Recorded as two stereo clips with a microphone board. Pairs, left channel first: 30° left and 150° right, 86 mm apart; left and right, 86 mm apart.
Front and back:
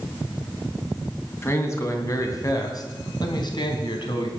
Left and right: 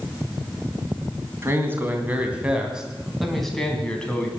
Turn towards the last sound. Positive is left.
turn(degrees=15)